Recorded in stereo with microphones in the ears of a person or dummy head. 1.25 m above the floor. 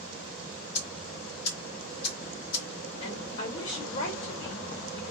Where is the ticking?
60° left (ahead or behind), 1.4 m.